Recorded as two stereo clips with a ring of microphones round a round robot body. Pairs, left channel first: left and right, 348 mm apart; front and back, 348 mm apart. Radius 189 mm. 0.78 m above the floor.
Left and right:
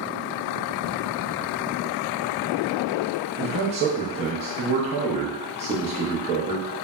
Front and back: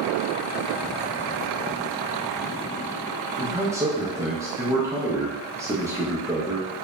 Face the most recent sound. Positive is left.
turn(degrees=-115)